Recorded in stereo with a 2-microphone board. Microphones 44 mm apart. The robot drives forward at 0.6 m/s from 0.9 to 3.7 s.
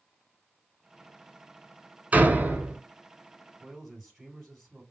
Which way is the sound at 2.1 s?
40° right (ahead or behind).